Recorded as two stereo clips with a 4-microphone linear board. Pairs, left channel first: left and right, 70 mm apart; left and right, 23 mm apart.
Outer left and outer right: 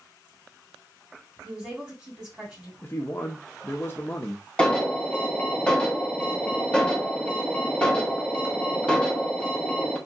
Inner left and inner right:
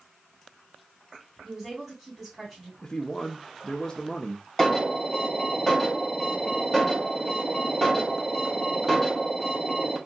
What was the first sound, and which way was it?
A woman speaking, 10° right (ahead or behind).